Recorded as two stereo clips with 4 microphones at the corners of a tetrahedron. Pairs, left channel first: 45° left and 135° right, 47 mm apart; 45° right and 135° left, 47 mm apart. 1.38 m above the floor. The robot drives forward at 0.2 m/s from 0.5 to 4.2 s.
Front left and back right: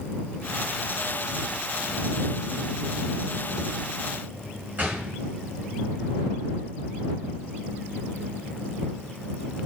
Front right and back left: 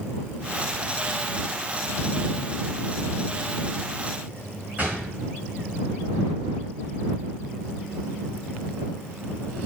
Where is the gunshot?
Straight behind, 1.6 m.